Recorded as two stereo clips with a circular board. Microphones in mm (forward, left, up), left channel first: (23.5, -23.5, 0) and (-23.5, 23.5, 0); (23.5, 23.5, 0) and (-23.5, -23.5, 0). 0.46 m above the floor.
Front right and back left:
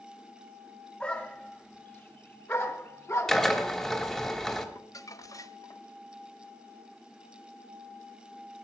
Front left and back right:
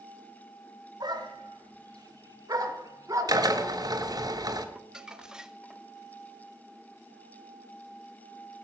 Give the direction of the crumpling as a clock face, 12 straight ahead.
2 o'clock.